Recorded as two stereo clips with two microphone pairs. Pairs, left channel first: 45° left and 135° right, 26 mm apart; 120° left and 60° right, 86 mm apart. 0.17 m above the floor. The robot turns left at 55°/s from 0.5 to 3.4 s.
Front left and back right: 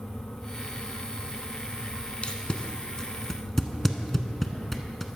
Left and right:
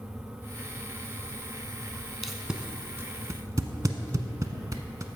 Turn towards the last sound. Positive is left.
turn(degrees=-25)